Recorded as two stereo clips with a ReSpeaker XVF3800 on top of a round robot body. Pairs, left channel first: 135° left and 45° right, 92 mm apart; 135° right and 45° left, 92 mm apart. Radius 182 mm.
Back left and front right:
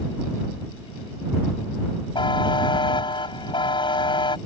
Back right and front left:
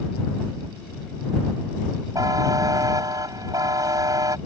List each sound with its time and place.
2.1 s a buzzer: 95° left